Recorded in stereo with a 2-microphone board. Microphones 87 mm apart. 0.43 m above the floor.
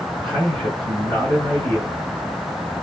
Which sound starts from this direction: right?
A man speaking, at 0.2 s.